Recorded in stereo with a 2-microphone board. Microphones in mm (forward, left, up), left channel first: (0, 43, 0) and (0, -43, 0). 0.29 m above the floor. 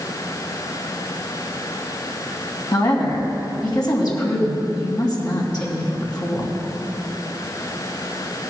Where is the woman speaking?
50° left (ahead or behind), 2.5 m.